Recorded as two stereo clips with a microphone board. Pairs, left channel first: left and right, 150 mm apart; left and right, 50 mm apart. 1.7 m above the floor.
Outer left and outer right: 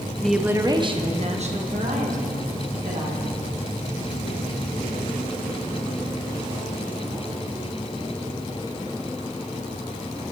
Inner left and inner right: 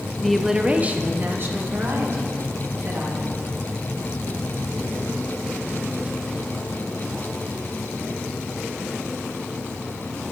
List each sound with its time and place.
0.2 s a woman speaking: 10° left (ahead or behind), 0.5 m; by 3.3 s 60° right (ahead or behind), 2.5 m